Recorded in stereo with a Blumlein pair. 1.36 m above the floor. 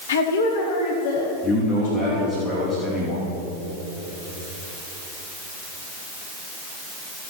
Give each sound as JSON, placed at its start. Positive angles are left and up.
{"t": 0.1, "sound": "a woman speaking", "azimuth_deg": 60, "distance_m": 1.2}
{"t": 1.4, "sound": "a man speaking", "azimuth_deg": 10, "distance_m": 2.5}